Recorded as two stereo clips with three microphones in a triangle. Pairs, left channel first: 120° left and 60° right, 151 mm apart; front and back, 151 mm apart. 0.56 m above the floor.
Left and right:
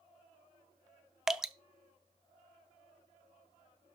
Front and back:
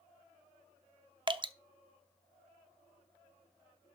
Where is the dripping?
145° right, 0.5 m.